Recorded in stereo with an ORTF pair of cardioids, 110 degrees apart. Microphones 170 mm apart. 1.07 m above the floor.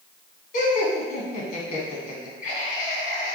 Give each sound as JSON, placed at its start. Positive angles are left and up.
{"t": 0.5, "sound": "laughter", "azimuth_deg": 55, "distance_m": 1.4}